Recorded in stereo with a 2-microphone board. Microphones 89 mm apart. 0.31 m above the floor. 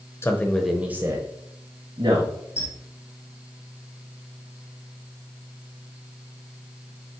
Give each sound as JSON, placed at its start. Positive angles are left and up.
{"t": 0.2, "sound": "a man speaking", "side_deg": 30, "distance_m": 1.0}
{"t": 2.6, "sound": "a squeak", "side_deg": 30, "distance_m": 2.5}